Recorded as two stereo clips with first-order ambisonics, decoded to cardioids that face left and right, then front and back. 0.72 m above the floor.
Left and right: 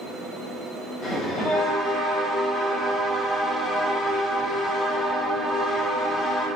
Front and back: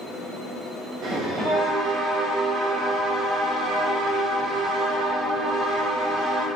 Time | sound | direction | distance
1.0 | a bell | 145° left | 0.8 m